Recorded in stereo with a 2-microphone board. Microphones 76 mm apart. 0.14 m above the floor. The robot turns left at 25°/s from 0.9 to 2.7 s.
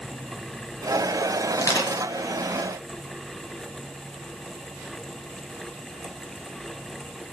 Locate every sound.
1.5 s crushing: 40° left (ahead or behind), 2 m; by 2.0 s 45° left (ahead or behind), 2 m